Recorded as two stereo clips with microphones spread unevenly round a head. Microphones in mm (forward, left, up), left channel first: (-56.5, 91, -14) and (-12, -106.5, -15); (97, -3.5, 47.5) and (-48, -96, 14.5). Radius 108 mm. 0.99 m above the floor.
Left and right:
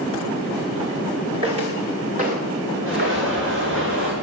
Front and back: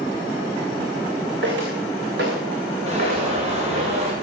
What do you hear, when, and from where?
1.4 s footsteps: 140° right, 5 m; by 3.9 s 100° right, 4.5 m
2.9 s an alarm: 100° right, 6.5 m